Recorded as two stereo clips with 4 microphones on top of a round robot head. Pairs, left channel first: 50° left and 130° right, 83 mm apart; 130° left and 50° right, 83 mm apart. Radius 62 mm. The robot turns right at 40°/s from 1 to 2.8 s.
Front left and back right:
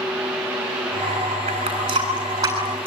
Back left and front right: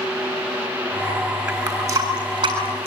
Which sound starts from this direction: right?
A running tap, at 1.5 s.